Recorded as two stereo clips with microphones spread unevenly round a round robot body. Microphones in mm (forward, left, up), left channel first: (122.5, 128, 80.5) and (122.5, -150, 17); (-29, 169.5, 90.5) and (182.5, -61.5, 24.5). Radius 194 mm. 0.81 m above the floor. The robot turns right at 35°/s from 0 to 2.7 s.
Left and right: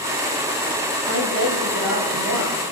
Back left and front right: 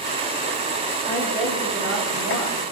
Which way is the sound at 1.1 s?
145° right.